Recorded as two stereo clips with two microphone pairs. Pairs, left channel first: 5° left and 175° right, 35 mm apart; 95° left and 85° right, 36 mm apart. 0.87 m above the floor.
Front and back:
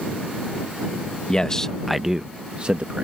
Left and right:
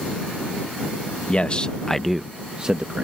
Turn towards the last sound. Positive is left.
turn(degrees=-135)